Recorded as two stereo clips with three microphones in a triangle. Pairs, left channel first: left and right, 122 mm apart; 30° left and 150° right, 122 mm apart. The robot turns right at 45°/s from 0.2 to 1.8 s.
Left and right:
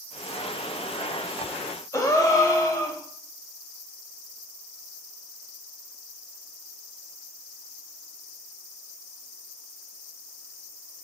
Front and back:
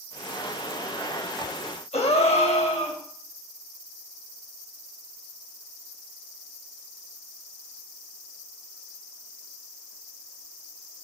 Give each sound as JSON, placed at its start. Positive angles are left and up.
{"t": 1.9, "sound": "a gasp", "azimuth_deg": 35, "distance_m": 0.5}